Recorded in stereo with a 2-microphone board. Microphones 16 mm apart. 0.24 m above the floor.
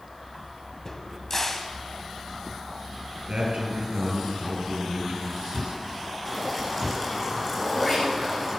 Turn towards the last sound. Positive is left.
turn(degrees=50)  # may be behind; listen again after turning